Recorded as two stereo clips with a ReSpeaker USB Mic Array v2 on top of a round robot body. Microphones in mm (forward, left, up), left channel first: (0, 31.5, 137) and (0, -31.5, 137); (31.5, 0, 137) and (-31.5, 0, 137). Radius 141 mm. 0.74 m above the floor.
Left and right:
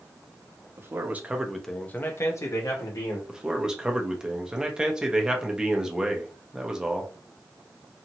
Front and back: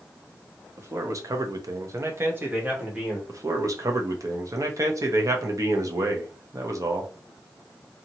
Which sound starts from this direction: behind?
A man speaking, at 3.3 s.